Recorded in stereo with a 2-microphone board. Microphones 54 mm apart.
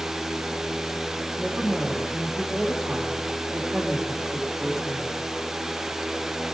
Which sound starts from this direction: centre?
A woman speaking, at 1.4 s.